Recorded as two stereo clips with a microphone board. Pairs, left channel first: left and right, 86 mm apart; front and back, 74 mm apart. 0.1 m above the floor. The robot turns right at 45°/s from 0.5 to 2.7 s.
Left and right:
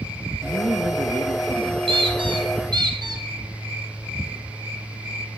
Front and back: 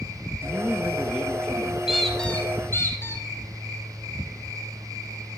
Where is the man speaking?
130° right, 2.5 m; by 1.8 s 70° right, 2.5 m.